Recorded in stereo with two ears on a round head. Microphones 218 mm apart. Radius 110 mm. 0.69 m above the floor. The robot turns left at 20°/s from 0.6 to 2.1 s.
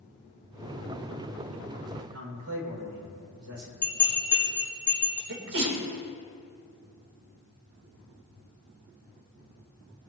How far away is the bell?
About 4 m.